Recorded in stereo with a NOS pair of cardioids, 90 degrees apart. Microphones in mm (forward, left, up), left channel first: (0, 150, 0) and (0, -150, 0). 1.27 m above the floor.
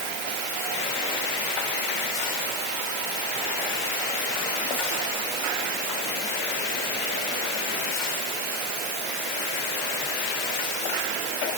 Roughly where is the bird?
I don't hear a bird.